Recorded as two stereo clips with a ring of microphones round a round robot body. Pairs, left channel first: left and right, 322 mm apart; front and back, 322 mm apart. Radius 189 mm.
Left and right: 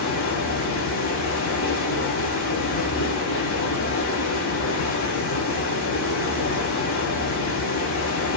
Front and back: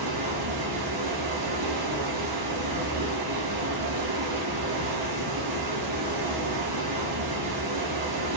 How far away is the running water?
About 0.7 m.